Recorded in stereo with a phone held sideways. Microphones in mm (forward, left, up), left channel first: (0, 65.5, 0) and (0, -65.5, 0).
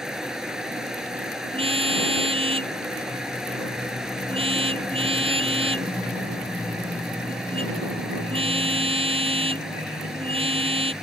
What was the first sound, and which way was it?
A fan, 5° right (ahead or behind).